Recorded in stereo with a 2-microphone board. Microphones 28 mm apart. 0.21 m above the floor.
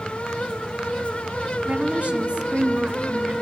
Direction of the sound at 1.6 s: 50° right (ahead or behind).